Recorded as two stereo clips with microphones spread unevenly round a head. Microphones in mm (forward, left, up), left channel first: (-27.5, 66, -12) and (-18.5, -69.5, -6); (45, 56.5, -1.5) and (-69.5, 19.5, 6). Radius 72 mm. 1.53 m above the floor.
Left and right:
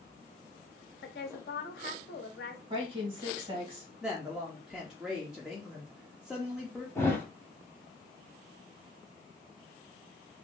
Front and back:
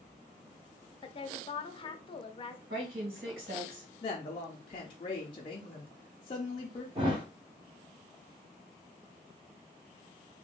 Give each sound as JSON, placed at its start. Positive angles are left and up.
{"t": 1.0, "sound": "a woman speaking", "azimuth_deg": 65, "distance_m": 0.6}
{"t": 2.7, "sound": "a woman speaking", "azimuth_deg": -140, "distance_m": 1.6}
{"t": 4.0, "sound": "a woman speaking", "azimuth_deg": -5, "distance_m": 0.5}
{"t": 7.0, "sound": "a thud", "azimuth_deg": 165, "distance_m": 1.4}